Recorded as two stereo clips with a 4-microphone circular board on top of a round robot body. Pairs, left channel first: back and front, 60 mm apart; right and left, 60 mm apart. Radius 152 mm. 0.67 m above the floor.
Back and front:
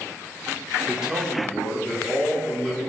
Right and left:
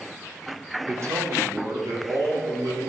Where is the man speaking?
75° left, 1.4 m; by 2.9 s 95° left, 3 m.